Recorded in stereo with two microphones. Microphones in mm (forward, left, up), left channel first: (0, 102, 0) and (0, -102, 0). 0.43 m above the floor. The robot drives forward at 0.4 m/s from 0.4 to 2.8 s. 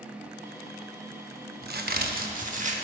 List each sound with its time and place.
1.6 s a crack: 50° right (ahead or behind), 0.5 m; by 2.8 s 35° right (ahead or behind), 0.7 m